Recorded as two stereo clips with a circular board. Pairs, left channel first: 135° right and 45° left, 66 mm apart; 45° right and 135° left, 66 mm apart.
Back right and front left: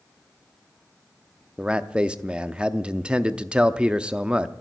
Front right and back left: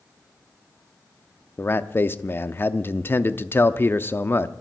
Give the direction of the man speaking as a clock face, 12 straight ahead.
1 o'clock.